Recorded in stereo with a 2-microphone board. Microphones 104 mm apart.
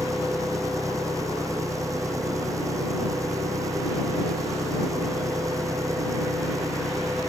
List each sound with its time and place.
0.0 s an engine running: 30° right (ahead or behind)